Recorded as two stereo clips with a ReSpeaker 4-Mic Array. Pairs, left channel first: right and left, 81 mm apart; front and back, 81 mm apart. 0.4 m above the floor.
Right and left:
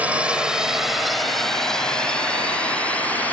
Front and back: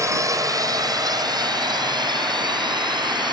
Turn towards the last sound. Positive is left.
turn(degrees=-160)